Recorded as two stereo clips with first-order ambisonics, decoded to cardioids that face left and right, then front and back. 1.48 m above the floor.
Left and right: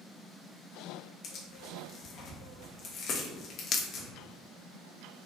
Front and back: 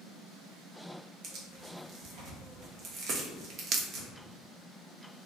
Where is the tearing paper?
140° left, 0.8 m.